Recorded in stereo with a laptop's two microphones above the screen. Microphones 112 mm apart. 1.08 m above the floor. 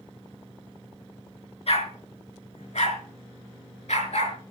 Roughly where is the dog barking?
Left.